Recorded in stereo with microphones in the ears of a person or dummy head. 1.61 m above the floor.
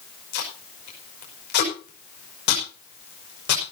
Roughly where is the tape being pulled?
Left.